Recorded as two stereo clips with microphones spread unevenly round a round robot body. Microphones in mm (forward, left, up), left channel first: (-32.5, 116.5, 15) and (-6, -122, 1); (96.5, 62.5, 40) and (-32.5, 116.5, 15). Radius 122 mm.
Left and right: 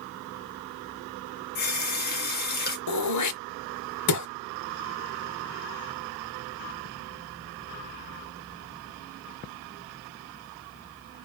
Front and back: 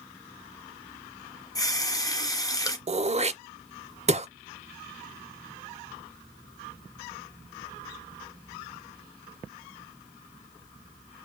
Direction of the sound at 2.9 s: 115° left.